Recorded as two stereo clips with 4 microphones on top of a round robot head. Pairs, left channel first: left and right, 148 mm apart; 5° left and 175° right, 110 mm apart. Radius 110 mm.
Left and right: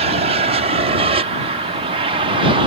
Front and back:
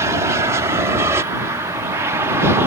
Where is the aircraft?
115° right; by 2.7 s 120° right.